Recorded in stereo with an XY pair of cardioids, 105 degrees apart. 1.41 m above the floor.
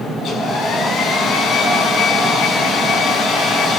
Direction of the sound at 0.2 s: 65° left.